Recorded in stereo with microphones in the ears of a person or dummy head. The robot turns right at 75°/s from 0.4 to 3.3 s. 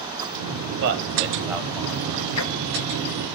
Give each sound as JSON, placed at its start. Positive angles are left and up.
{"t": 0.8, "sound": "a man speaking", "side_deg": -65, "distance_m": 0.9}
{"t": 2.4, "sound": "ticking", "side_deg": 80, "distance_m": 0.7}